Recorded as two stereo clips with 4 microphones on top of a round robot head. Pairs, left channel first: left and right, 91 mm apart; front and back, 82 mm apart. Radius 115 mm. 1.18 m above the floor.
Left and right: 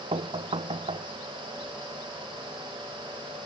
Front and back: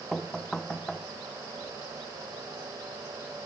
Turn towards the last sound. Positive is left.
turn(degrees=-85)